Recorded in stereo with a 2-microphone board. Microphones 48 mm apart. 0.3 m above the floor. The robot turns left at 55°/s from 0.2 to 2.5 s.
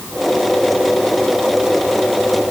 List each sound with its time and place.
Only background noise.